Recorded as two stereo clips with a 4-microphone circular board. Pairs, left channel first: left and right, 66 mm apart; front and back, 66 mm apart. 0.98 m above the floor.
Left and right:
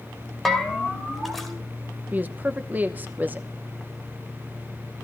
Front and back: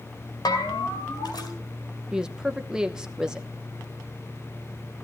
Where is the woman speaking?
110° right, 0.8 m.